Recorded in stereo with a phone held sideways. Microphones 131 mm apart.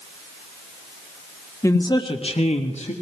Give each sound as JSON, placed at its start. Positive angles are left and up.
{"t": 1.6, "sound": "a man speaking", "side_deg": 25, "distance_m": 1.5}